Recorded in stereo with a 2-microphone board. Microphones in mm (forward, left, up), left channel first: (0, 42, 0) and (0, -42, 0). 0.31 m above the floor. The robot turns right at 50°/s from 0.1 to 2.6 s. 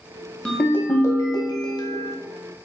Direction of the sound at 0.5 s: 15° left.